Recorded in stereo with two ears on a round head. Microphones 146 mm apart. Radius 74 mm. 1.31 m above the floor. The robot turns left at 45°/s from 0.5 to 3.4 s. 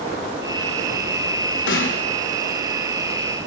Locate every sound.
1.7 s a snare drum: 85° left, 5.5 m; by 2.0 s 75° left (ahead or behind), 5.5 m